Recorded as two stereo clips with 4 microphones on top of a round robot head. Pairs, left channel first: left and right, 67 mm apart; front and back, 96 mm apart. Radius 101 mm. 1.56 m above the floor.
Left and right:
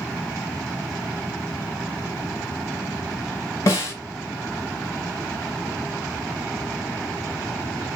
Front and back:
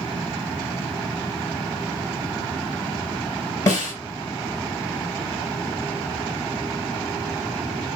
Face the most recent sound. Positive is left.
turn(degrees=50)